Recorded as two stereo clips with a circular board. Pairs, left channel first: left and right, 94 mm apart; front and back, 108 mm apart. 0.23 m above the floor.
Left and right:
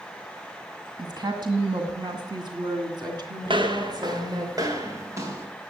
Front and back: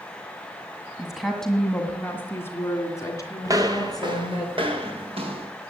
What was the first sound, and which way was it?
A woman speaking, 95° right.